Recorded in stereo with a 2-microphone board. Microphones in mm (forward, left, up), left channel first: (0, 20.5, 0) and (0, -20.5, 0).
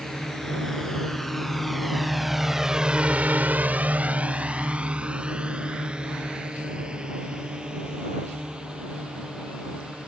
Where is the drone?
10° left (ahead or behind); by 10.1 s 20° right (ahead or behind).